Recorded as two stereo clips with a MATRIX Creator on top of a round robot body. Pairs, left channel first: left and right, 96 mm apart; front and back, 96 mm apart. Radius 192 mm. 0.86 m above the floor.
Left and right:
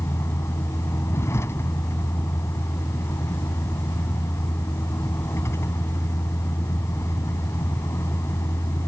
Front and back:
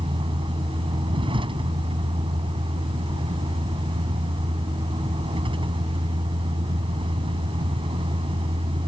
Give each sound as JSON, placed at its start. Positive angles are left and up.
{"t": 0.0, "sound": "a vehicle", "azimuth_deg": 155}